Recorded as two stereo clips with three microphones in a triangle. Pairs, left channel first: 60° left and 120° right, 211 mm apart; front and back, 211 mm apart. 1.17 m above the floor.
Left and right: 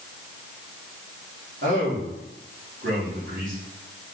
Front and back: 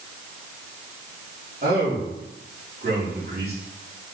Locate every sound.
1.6 s a man speaking: 140° right, 3.5 m